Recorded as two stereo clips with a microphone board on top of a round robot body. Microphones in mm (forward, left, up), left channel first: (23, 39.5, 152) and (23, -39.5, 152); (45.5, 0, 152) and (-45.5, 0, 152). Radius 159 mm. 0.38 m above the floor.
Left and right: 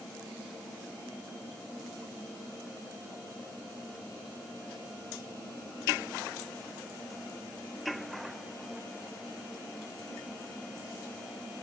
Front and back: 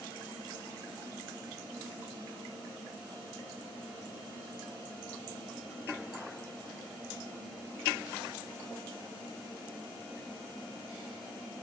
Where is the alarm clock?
No alarm clock in this recording.